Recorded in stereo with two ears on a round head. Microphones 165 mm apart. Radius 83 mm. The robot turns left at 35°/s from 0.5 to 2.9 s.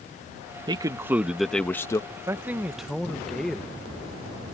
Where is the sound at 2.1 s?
20° right (ahead or behind); by 3.8 s centre (ahead or behind).